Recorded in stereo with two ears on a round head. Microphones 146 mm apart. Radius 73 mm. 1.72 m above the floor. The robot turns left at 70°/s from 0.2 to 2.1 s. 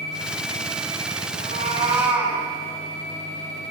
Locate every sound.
1.4 s a cat meowing: 120° right, 6.5 m; by 2.4 s 170° right, 6.5 m